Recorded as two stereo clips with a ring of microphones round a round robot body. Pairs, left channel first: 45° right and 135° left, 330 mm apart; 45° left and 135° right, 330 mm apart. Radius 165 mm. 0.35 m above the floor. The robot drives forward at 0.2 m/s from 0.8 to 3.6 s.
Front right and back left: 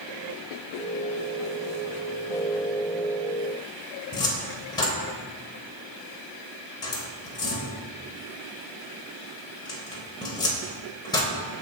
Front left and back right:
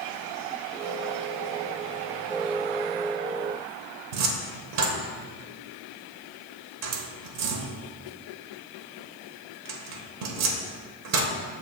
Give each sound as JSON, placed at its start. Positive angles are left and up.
{"t": 4.1, "sound": "a cupboard door", "azimuth_deg": -120, "distance_m": 1.0}